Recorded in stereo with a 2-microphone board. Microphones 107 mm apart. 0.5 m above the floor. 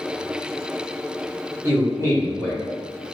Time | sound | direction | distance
1.6 | a man speaking | 25° right (ahead or behind) | 1.1 m